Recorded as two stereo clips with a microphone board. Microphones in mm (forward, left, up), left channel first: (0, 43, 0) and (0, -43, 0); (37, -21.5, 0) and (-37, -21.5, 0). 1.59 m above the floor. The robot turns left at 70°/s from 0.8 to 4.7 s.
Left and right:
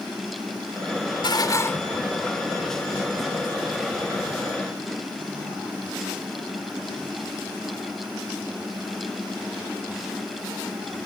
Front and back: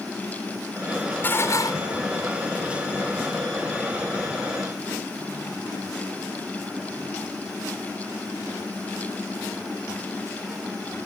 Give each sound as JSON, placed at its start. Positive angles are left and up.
{"t": 1.2, "sound": "dishes clattering", "azimuth_deg": 65}